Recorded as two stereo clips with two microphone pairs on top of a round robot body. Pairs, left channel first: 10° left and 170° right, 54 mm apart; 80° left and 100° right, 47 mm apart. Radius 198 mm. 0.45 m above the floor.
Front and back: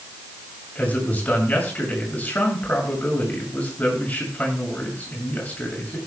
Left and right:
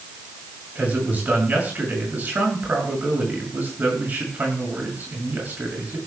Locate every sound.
0.8 s a man speaking: 50° right, 7 m